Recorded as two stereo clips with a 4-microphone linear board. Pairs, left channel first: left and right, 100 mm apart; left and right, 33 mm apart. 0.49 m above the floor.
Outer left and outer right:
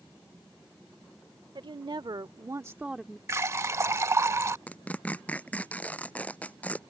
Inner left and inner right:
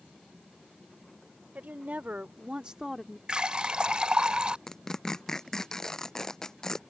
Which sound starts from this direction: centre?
Tearing paper, at 4.7 s.